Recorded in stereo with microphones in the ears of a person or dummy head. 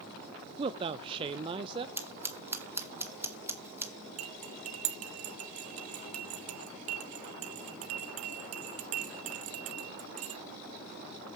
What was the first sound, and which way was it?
A man speaking, 20° right (ahead or behind).